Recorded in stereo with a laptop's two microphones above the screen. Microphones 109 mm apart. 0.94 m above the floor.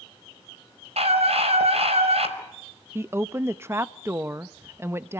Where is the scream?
70° right (ahead or behind), 5.5 m.